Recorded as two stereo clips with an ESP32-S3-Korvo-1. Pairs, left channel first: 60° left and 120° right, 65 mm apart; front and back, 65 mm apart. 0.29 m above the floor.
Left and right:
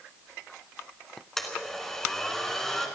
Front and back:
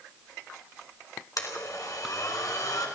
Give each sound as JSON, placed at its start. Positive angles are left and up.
{"t": 1.4, "sound": "a blender", "azimuth_deg": -25, "distance_m": 2.5}